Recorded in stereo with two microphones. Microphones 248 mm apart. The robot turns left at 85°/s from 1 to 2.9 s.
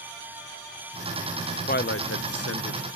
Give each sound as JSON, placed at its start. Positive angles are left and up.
{"t": 1.7, "sound": "a man speaking", "side_deg": 35, "distance_m": 0.6}